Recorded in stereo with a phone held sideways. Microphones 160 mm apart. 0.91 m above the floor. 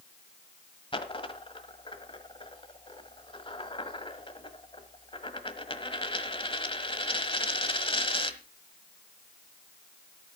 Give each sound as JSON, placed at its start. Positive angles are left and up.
{"t": 0.9, "sound": "a dropped coin", "side_deg": 35, "distance_m": 1.3}